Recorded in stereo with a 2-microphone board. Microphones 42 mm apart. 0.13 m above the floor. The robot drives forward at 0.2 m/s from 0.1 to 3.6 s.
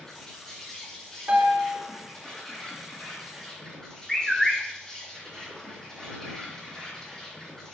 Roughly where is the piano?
Right.